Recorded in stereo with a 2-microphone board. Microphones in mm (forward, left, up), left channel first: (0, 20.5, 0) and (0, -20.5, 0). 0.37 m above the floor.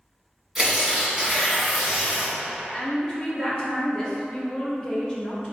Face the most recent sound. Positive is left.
turn(degrees=20)  # may be behind; listen again after turning